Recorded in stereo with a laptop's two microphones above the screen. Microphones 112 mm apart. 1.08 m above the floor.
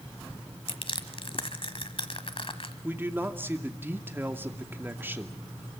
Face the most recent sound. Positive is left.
turn(degrees=-20)  # may be behind; listen again after turning